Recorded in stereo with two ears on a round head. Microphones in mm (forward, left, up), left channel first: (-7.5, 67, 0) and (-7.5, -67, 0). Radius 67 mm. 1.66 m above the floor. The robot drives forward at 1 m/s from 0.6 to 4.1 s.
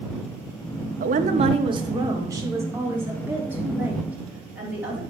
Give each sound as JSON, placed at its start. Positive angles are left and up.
{"t": 1.0, "sound": "a woman speaking", "side_deg": -60, "distance_m": 0.8}